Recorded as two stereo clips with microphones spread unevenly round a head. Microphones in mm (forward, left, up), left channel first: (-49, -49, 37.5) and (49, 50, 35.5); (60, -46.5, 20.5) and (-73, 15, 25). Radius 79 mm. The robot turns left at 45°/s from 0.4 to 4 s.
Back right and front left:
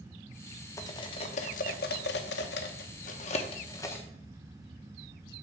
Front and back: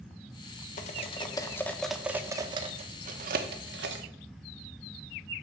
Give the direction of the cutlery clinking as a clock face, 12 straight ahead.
2 o'clock.